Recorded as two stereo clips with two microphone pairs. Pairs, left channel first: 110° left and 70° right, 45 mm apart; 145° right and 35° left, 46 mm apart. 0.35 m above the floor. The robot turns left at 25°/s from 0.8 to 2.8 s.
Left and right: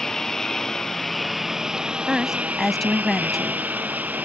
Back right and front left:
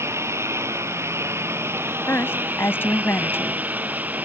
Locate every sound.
0.0 s a lawn mower: 35° left; by 4.3 s 15° right
2.1 s a woman speaking: 140° right; by 3.6 s 160° right